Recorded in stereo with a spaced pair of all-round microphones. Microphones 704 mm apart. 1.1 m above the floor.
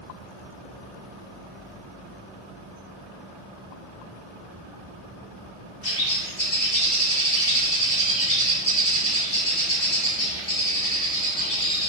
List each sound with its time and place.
5.8 s a bird: 80° left, 4.5 m